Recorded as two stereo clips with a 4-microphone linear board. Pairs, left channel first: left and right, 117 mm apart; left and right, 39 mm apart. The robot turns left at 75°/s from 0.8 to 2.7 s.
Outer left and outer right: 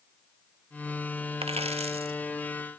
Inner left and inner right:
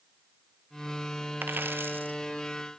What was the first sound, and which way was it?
A dropped coin, 65° right.